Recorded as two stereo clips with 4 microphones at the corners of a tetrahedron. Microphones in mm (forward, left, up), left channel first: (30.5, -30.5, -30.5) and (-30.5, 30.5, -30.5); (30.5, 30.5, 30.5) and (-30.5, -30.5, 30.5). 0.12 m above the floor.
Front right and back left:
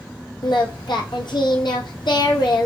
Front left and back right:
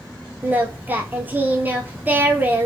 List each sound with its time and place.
0.4 s singing: 65° right, 0.6 m